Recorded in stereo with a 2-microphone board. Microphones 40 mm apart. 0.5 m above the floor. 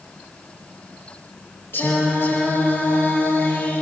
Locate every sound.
1.7 s singing: 75° left (ahead or behind), 9.5 m